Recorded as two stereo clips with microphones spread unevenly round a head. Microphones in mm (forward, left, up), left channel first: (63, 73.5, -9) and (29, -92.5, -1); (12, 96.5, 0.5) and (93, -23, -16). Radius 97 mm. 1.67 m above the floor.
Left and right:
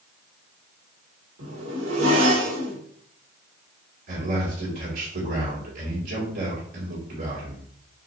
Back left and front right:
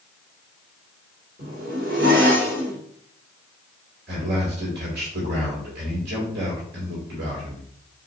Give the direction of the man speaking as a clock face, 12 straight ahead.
3 o'clock.